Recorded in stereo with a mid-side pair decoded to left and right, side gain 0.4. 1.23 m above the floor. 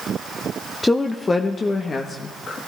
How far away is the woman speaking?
About 0.8 m.